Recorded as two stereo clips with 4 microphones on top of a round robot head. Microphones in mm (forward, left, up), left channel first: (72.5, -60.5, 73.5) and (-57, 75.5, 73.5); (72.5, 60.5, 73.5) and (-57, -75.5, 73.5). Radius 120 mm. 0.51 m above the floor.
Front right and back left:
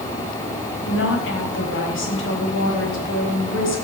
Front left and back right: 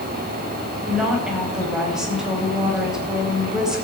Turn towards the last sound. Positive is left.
turn(degrees=-45)